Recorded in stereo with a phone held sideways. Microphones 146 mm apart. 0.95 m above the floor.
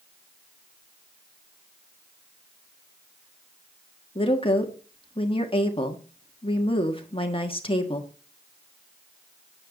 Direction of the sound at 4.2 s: 40° left (ahead or behind).